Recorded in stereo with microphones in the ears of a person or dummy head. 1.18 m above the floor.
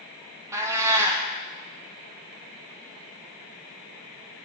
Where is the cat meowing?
15° right (ahead or behind), 0.6 m.